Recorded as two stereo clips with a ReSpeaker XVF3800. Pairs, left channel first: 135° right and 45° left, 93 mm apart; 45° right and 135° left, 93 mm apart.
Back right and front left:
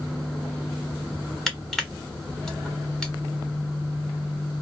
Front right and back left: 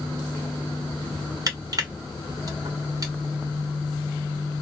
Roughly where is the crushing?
Behind left.